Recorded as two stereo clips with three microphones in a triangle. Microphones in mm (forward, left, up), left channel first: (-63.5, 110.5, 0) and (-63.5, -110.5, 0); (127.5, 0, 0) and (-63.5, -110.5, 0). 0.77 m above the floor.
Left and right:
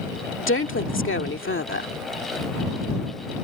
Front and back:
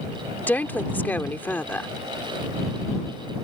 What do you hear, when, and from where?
0.4 s a woman speaking: 110° left